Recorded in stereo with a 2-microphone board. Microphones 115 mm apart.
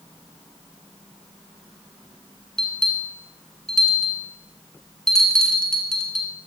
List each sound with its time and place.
2.6 s a bell: 5° left (ahead or behind), 1.7 m